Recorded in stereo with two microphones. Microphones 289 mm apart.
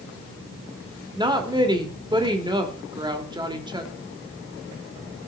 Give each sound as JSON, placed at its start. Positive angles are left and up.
{"t": 1.1, "sound": "a woman speaking", "side_deg": -15, "distance_m": 1.6}